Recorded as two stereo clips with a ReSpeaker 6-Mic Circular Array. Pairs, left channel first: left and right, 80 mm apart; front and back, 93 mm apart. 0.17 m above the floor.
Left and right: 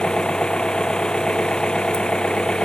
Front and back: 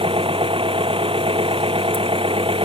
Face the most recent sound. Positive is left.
turn(degrees=170)